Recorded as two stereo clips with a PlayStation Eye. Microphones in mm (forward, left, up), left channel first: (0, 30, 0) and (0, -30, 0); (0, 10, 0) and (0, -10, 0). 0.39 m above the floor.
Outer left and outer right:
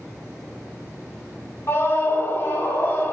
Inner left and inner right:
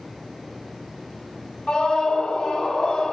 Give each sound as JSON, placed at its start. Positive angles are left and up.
{"t": 1.7, "sound": "a scream", "side_deg": 45, "distance_m": 1.5}